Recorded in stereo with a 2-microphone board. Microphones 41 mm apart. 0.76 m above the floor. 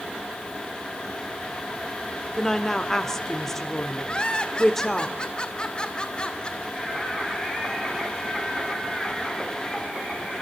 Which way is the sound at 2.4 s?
10° left (ahead or behind).